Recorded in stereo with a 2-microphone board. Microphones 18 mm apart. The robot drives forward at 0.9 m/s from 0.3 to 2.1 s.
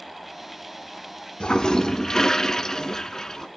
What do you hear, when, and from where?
1.4 s a toilet flushing: 65° left (ahead or behind), 1.0 m; by 3.5 s 40° left (ahead or behind), 1.4 m